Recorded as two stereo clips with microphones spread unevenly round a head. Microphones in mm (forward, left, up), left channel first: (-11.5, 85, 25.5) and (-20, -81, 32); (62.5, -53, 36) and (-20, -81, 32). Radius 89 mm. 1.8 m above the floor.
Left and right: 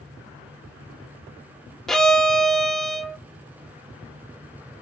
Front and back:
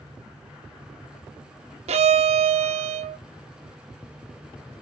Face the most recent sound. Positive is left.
turn(degrees=175)